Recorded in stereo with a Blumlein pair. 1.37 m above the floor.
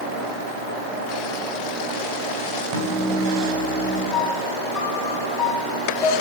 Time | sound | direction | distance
2.7 | a microwave | 40° right | 4 m
4.1 | a piano | 15° left | 2.5 m